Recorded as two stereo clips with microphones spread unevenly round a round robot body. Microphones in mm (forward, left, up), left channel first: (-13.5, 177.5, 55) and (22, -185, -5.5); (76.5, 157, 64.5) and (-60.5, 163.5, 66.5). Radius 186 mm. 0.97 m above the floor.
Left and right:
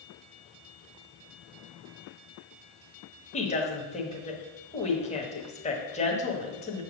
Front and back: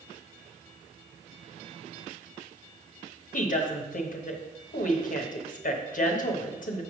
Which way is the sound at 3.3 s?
20° left.